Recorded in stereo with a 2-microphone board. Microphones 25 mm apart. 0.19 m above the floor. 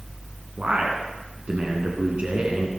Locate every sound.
0.6 s a man speaking: 50° right (ahead or behind), 2 m